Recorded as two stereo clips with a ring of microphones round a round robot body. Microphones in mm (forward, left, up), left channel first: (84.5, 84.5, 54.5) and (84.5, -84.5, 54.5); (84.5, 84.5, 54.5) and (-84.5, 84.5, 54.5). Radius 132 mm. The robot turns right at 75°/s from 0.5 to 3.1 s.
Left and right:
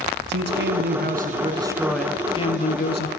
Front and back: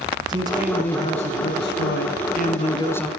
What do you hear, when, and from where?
0.3 s a man speaking: 110° right, 5 m; by 3.1 s 85° left, 5 m